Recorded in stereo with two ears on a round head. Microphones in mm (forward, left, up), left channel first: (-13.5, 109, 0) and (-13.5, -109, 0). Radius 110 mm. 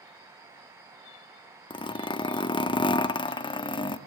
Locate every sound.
1.7 s a zipper: 20° left (ahead or behind), 0.9 m